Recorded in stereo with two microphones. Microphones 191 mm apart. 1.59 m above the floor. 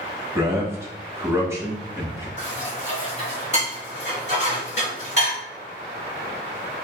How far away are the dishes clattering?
About 2 m.